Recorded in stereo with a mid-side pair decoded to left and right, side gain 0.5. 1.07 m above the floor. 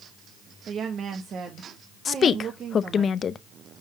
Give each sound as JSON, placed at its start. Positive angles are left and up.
{"t": 0.7, "sound": "a woman speaking", "azimuth_deg": -55, "distance_m": 1.2}
{"t": 2.0, "sound": "a woman speaking", "azimuth_deg": 45, "distance_m": 0.7}